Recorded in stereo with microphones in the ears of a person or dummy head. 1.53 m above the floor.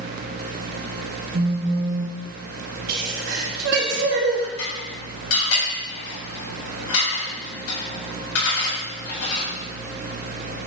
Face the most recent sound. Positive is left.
turn(degrees=80)